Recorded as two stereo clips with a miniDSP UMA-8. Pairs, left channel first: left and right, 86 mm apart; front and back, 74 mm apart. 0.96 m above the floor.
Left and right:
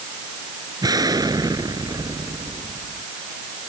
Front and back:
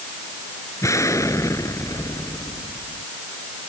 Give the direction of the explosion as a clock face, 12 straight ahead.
2 o'clock.